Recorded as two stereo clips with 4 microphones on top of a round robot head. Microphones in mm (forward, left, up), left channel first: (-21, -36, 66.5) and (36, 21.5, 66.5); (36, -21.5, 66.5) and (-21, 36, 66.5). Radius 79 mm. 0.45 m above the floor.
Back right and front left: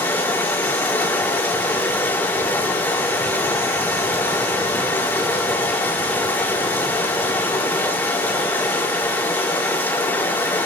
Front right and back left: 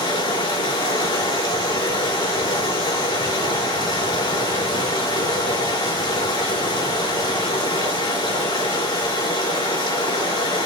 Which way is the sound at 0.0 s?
70° right.